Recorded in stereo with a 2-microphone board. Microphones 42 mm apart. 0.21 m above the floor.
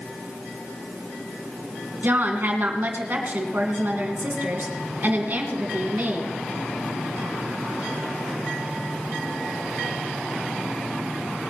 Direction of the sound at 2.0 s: 50° right (ahead or behind).